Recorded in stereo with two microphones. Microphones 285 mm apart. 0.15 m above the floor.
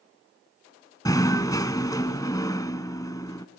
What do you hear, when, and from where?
1.1 s knocking: 15° left (ahead or behind), 0.8 m